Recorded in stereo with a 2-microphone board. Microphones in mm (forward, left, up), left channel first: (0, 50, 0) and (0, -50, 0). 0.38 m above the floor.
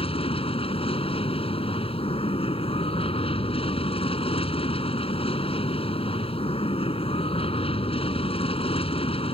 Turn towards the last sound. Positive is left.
turn(degrees=70)  # may be behind; listen again after turning